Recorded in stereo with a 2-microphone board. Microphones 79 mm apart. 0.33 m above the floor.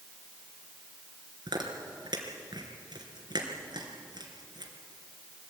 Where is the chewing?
60° right (ahead or behind), 3.5 m.